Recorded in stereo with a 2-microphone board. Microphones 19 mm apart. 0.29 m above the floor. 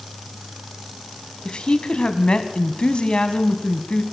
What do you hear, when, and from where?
1.4 s a woman speaking: 55° left (ahead or behind), 1.9 m